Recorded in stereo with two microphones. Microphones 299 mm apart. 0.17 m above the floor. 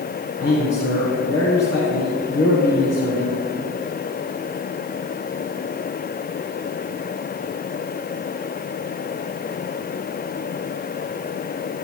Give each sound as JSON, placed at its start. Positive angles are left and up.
{"t": 0.4, "sound": "a man speaking", "side_deg": 60, "distance_m": 3.0}